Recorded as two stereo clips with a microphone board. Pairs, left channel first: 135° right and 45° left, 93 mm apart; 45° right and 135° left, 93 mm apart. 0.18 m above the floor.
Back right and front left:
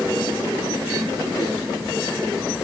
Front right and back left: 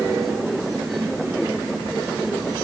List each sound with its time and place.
Only background noise.